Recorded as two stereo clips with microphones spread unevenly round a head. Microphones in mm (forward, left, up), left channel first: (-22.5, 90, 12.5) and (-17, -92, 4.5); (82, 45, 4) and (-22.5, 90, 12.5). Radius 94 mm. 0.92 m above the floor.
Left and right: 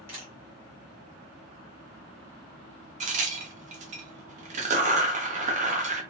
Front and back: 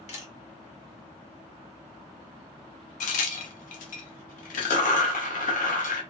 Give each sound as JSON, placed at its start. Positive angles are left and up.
{"t": 0.1, "sound": "a camera shutter", "azimuth_deg": -10, "distance_m": 1.3}
{"t": 3.0, "sound": "a crack", "azimuth_deg": -30, "distance_m": 0.5}